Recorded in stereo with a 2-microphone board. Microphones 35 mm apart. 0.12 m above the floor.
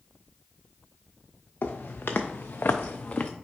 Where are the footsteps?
70° left (ahead or behind), 0.9 m; by 3.3 s 40° left (ahead or behind), 0.5 m.